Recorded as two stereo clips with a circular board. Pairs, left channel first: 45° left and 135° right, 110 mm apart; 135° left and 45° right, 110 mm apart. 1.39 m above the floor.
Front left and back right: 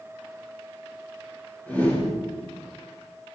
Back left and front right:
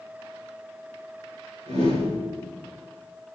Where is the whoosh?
30° right, 6 m.